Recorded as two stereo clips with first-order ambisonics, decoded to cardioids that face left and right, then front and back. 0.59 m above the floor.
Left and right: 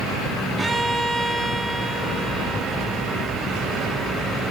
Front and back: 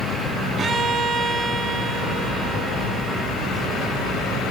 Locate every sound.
0.6 s a violin: 155° right, 1.0 m